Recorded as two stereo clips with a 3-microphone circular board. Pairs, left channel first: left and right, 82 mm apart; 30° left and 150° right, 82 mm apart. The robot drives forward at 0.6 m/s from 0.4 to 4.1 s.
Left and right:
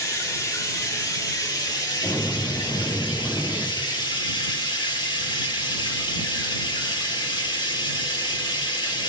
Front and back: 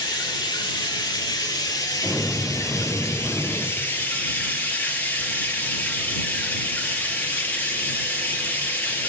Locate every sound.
0.0 s running water: 45° left, 3 m; by 9.1 s 95° left, 2 m
2.0 s an explosion: 150° left, 3.5 m; by 3.7 s 155° left, 4.5 m